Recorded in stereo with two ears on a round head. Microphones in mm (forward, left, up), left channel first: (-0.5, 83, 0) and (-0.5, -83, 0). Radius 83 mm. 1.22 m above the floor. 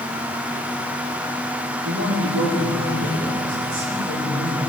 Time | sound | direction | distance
1.9 | a man speaking | 70° right (ahead or behind) | 2.5 m